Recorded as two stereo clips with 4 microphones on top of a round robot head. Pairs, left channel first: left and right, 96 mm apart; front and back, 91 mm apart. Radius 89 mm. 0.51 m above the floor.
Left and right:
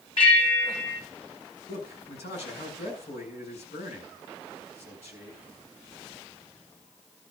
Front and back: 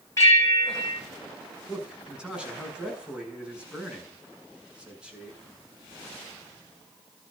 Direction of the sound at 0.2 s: 60° left.